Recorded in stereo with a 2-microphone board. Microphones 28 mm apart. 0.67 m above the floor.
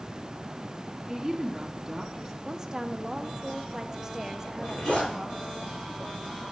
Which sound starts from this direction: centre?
A woman speaking, at 1.1 s.